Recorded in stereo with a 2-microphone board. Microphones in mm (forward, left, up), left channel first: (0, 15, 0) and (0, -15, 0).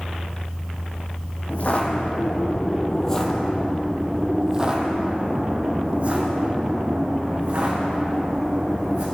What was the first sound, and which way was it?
Footsteps, 55° left (ahead or behind).